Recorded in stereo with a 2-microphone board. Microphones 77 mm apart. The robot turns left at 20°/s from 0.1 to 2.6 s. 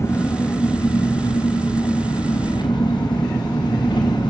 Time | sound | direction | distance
0.0 | an engine running | 145° left | 3.5 m